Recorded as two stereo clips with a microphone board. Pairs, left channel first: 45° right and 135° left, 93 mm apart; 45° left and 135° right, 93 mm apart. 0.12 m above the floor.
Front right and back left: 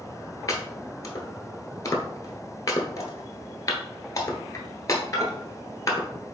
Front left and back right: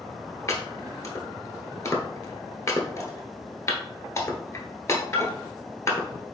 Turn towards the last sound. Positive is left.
turn(degrees=0)